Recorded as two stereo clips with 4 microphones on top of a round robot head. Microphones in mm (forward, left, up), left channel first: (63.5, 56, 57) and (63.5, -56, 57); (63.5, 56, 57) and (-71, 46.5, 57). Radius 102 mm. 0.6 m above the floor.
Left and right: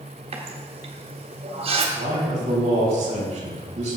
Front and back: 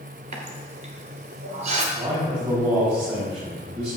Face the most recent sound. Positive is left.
turn(degrees=-120)